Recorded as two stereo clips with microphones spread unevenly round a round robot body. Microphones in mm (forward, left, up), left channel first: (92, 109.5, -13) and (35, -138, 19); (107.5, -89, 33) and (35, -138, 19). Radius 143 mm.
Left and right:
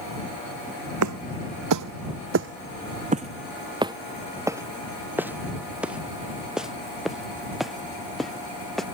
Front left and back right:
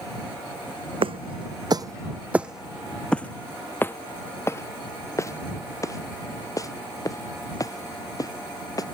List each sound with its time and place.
1.0 s footsteps: 130° right; by 8.8 s 10° right